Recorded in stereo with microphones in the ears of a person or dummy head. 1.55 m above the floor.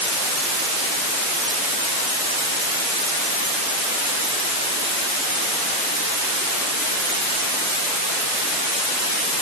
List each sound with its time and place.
Only background noise.